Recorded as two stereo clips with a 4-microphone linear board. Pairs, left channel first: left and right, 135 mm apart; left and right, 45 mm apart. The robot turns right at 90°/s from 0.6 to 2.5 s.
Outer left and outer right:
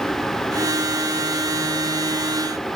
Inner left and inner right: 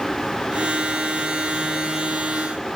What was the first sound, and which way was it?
Only background noise.